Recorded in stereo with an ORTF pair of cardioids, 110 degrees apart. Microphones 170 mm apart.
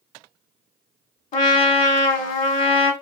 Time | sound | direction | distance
1.3 | a trumpet | 55° left | 1.1 m